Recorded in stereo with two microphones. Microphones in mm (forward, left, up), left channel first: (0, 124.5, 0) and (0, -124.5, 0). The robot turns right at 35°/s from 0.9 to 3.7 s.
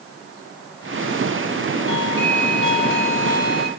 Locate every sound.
1.9 s a doorbell: 105° right, 4.5 m; by 3.7 s 40° right, 4.5 m